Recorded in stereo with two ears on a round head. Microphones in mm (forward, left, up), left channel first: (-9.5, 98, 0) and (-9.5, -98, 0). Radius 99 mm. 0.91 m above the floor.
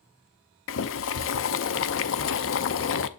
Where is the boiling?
55° left (ahead or behind), 0.6 m.